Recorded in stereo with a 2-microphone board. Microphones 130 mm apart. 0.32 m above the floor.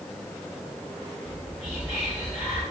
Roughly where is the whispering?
Left.